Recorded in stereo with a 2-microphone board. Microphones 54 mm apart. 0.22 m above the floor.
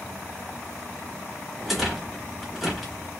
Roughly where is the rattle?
Centre.